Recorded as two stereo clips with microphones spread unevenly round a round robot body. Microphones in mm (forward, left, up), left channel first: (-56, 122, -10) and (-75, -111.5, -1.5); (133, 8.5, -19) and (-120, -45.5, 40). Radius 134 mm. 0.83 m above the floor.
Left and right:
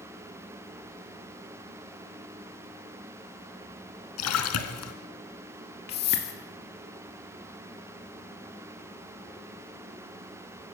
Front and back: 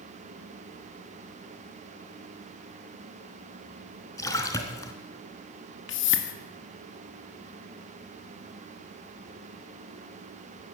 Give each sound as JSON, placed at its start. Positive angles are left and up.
{"t": 4.2, "sound": "a splash", "azimuth_deg": 95, "distance_m": 2.0}
{"t": 5.9, "sound": "a whoosh", "azimuth_deg": 35, "distance_m": 2.0}